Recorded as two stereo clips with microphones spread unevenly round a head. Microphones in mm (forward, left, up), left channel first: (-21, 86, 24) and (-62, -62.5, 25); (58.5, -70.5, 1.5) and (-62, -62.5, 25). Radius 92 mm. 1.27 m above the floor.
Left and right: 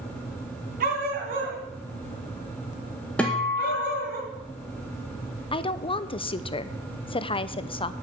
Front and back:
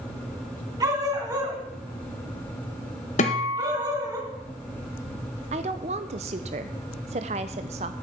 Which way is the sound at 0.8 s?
130° right.